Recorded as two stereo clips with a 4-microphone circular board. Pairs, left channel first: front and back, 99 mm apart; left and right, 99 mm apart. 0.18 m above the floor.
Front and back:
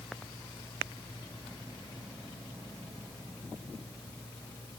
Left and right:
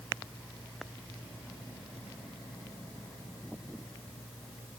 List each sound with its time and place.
Only background noise.